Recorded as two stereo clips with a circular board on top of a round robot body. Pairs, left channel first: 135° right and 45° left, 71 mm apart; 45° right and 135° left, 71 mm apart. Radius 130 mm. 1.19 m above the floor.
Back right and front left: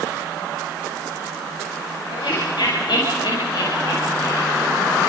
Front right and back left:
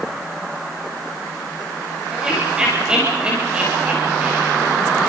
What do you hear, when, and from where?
2.1 s laughter: 145° right, 7 m; by 4.7 s 160° right, 6 m